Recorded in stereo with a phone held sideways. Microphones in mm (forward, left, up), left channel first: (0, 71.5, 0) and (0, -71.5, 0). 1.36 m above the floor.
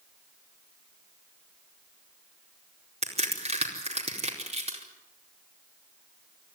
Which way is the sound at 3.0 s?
50° right (ahead or behind).